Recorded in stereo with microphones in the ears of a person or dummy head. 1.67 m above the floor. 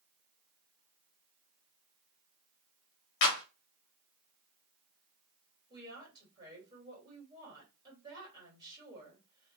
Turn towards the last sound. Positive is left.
turn(degrees=-25)  # may be behind; listen again after turning